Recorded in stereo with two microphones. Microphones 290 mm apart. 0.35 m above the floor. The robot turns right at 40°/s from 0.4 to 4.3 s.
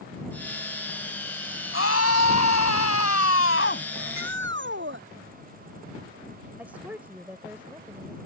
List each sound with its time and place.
1.7 s a scream: 55° left; by 3.9 s 140° left
4.0 s a shout: 55° right (ahead or behind); by 5.0 s 40° right (ahead or behind)
6.6 s a woman speaking: 5° right (ahead or behind)